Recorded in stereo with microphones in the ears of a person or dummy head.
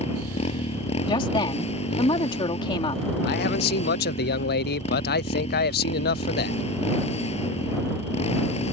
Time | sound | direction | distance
0.0 | a motorcycle | 35° left (ahead or behind) | ?
1.1 | a woman speaking | 30° left (ahead or behind) | ?
3.2 | a man speaking | 60° left (ahead or behind) | ?